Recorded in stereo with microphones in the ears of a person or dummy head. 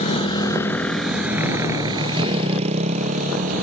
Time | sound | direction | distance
0.0 | a motorcycle | 35° left (ahead or behind) | ?